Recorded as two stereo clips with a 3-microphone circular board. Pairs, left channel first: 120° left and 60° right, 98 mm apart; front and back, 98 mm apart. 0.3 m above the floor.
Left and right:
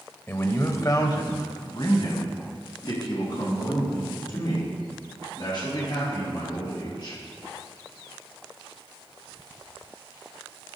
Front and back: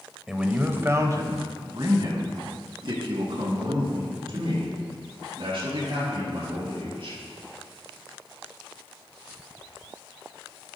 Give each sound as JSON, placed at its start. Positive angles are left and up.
{"t": 0.3, "sound": "a man speaking", "azimuth_deg": 105, "distance_m": 1.0}